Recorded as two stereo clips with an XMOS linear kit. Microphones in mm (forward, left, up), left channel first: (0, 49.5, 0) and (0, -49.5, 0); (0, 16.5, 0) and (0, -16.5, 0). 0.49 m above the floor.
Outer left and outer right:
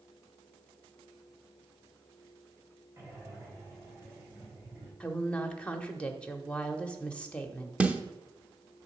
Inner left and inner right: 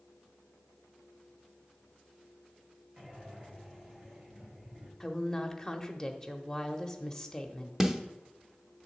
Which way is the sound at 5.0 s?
10° left (ahead or behind).